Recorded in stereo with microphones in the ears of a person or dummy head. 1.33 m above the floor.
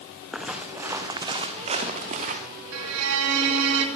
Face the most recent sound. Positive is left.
turn(degrees=-85)